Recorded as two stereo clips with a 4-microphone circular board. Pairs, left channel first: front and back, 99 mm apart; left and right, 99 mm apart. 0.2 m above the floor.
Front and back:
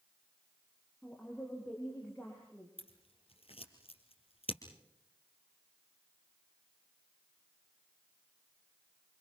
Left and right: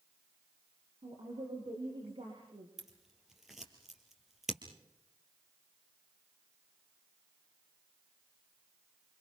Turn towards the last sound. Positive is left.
turn(degrees=-5)